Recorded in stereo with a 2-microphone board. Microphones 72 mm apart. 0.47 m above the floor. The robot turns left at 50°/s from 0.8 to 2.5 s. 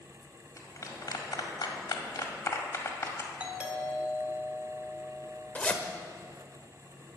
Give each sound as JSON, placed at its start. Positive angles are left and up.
{"t": 0.6, "sound": "a clap", "side_deg": 50, "distance_m": 1.7}
{"t": 3.4, "sound": "a doorbell", "side_deg": -15, "distance_m": 1.9}
{"t": 5.5, "sound": "a zipper", "side_deg": 20, "distance_m": 0.9}